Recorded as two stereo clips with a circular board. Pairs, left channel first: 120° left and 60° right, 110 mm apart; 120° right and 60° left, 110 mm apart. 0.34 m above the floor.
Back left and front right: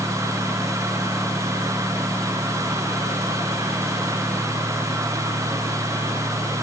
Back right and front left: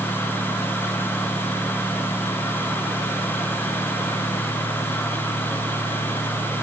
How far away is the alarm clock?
No alarm clock in this recording.